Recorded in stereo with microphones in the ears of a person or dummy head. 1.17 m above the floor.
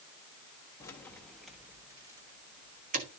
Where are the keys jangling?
15° left (ahead or behind), 1.3 m; by 3.1 s 40° right (ahead or behind), 1.5 m.